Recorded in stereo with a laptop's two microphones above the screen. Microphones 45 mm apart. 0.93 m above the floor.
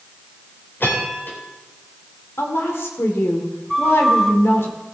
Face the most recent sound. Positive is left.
turn(degrees=5)  # may be behind; listen again after turning